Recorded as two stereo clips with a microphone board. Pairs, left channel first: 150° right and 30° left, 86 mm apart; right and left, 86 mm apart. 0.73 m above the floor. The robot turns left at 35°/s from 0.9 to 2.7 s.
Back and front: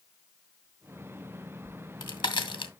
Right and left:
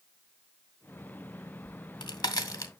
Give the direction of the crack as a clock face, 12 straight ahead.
4 o'clock.